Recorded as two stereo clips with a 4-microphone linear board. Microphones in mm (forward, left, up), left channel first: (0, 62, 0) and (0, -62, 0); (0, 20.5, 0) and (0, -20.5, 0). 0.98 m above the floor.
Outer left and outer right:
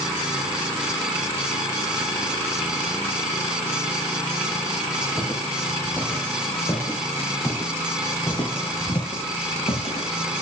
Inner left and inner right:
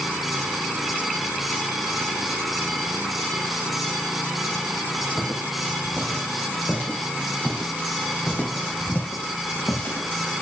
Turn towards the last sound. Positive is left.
turn(degrees=55)  # may be behind; listen again after turning